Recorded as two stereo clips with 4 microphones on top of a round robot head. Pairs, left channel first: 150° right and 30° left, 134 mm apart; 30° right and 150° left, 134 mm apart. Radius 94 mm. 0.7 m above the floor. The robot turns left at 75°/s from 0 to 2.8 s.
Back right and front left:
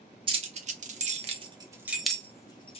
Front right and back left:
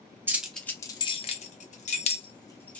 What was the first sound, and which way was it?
Keys jangling, 75° left.